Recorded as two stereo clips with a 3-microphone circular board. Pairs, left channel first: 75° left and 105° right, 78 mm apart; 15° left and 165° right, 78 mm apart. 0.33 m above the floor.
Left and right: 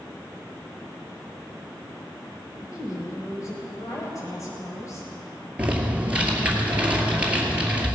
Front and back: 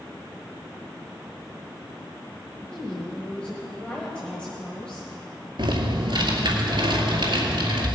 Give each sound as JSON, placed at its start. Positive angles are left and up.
{"t": 2.7, "sound": "a woman speaking", "azimuth_deg": 90, "distance_m": 1.6}
{"t": 5.6, "sound": "typing on a keyboard", "azimuth_deg": 180, "distance_m": 2.0}